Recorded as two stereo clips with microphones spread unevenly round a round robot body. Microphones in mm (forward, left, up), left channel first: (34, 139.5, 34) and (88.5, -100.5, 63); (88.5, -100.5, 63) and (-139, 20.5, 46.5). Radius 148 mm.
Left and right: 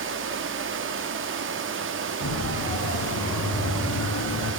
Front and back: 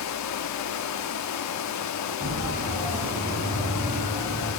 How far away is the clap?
I don't hear a clap.